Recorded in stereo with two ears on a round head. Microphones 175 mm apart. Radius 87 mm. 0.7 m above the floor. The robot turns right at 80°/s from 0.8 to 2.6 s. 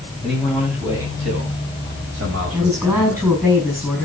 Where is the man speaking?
Straight behind, 5 m; by 3.4 s 35° right, 5 m.